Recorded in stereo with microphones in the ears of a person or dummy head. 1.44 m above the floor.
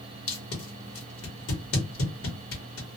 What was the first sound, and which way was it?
Tape being pulled, 70° left (ahead or behind).